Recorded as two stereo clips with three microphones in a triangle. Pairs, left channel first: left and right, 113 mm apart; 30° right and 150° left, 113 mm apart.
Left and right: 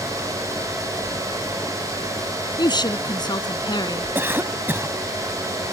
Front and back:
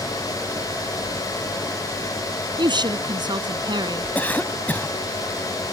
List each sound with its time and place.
2.6 s a woman speaking: 120° left
4.2 s a cough: 75° right